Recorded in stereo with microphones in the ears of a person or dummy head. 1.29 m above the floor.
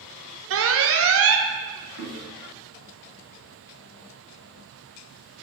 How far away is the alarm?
About 0.6 m.